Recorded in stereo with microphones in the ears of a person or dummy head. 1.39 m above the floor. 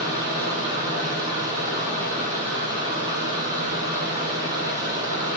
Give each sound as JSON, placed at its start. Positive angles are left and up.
{"t": 0.0, "sound": "a fan", "side_deg": -25, "distance_m": 5.0}